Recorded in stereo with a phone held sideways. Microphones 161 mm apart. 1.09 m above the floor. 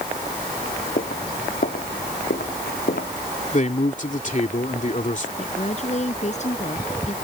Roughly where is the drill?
I don't hear a drill.